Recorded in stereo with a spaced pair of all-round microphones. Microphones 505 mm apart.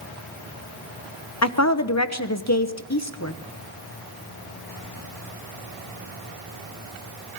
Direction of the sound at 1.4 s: 30° left (ahead or behind).